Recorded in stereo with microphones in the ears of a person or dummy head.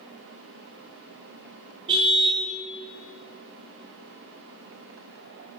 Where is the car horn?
30° right (ahead or behind), 3.5 m.